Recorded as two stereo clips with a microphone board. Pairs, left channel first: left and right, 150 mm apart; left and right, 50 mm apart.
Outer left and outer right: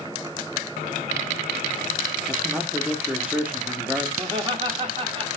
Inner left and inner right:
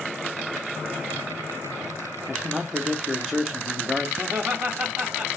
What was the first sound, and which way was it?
A man speaking, 10° right (ahead or behind).